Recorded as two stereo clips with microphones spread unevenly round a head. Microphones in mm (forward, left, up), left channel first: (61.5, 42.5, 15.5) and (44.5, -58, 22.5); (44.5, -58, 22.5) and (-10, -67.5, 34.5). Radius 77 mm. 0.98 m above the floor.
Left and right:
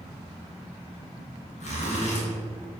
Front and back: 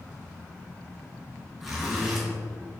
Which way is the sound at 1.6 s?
95° left.